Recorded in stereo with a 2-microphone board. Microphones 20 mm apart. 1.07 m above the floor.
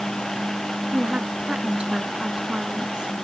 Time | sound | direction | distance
0.9 | a woman speaking | 55° right (ahead or behind) | ?